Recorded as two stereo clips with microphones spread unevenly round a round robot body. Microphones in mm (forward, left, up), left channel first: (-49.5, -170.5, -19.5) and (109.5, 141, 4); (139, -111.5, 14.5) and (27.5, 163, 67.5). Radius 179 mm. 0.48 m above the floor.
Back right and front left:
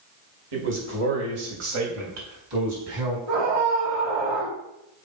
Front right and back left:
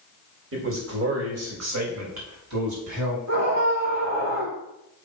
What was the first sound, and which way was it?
A man speaking, 65° left.